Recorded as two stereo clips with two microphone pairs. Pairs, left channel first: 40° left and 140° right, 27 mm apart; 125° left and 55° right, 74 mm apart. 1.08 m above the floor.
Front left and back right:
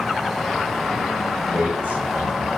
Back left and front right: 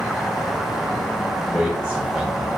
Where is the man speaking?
125° right, 5.5 m.